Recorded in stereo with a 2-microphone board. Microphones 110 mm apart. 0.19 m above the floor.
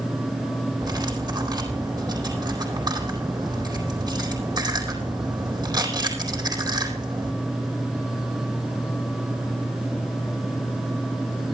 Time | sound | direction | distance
0.8 | cutlery clinking | 40° right (ahead or behind) | 4 m